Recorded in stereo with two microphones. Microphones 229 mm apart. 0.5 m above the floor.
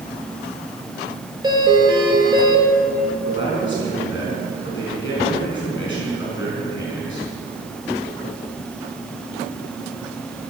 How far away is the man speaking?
About 4.5 m.